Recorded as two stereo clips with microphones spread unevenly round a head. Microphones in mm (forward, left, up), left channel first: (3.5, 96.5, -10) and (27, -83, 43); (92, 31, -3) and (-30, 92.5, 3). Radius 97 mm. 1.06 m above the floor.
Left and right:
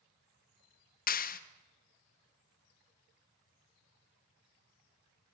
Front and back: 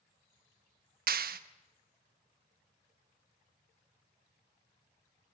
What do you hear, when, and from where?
1.1 s a clap: 140° left, 1.3 m